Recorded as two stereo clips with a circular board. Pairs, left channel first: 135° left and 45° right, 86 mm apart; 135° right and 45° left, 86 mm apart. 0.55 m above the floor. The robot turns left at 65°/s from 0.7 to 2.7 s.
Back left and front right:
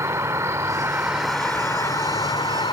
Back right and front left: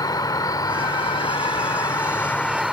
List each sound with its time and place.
0.0 s an insect: 100° right; by 2.7 s 130° left